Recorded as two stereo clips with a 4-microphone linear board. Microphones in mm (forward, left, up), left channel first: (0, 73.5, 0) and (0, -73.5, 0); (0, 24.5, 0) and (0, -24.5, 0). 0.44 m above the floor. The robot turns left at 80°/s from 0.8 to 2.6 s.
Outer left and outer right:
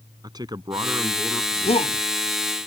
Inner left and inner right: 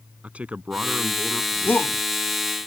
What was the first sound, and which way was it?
A man speaking, 150° right.